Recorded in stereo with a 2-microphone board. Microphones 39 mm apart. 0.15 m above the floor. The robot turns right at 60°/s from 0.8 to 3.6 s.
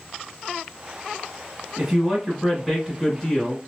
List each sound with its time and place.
1.8 s a man speaking: 15° right (ahead or behind), 1.4 m; by 3.6 s 15° left (ahead or behind), 1.4 m